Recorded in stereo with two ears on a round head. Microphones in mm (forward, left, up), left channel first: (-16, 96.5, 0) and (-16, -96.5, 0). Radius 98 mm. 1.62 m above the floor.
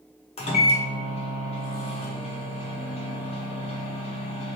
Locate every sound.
0.4 s a microwave: 30° left (ahead or behind), 0.6 m